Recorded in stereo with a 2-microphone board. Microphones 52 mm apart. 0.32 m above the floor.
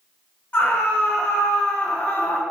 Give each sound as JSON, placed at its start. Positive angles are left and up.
{"t": 0.5, "sound": "a scream", "side_deg": 35, "distance_m": 3.0}